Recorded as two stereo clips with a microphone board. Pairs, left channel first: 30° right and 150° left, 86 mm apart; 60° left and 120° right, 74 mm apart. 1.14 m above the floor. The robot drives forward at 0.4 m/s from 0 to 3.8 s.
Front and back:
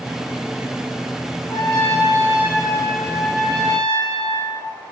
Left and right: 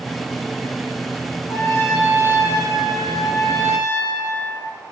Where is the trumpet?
25° left, 1.9 m; by 4.7 s 45° left, 1.2 m.